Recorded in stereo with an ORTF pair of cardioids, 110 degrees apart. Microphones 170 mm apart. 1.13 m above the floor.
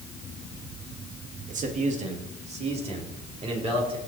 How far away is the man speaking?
About 2 m.